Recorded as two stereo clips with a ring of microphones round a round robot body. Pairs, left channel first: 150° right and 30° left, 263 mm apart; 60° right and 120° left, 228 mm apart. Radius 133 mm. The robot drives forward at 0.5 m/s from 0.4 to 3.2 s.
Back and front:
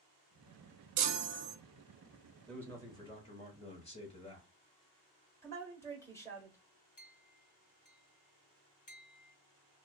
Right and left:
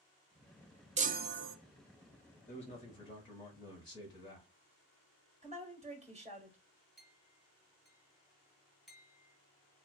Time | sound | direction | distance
1.0 | a chime | 55° left | 0.6 m
2.5 | a man speaking | 65° right | 1.0 m
5.4 | a woman speaking | 140° left | 1.2 m
7.0 | a clink | 150° right | 0.9 m